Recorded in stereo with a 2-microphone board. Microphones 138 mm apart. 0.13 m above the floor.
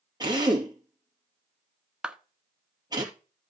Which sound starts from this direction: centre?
A clap, at 2.0 s.